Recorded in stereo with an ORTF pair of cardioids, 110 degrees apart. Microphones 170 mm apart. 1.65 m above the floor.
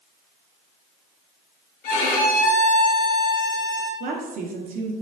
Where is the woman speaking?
55° right, 1.0 m.